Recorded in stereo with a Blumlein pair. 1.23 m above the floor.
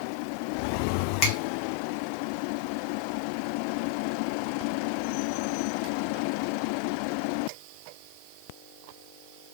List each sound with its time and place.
1.2 s a finger snap: 40° left, 1.3 m